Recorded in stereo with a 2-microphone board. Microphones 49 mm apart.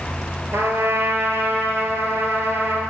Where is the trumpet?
55° right (ahead or behind), 1.7 m.